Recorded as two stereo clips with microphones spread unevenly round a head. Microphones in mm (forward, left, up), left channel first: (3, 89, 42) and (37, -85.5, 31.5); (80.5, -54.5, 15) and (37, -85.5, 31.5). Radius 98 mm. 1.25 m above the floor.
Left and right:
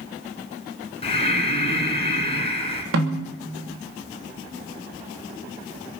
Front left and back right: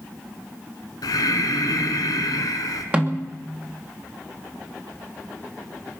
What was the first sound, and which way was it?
Breathing, 50° left.